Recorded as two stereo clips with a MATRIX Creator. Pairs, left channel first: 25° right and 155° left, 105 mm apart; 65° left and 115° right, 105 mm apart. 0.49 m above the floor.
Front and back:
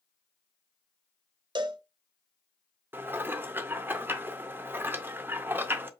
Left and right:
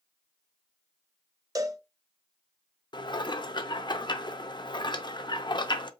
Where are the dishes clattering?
95° left, 0.6 m.